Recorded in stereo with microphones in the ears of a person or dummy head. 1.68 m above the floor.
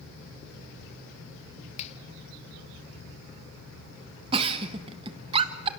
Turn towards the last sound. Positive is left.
turn(degrees=-30)  # may be behind; listen again after turning